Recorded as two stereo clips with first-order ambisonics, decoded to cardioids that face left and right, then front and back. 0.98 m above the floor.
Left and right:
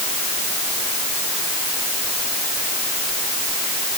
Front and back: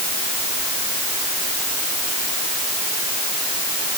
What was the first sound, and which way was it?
Only background noise.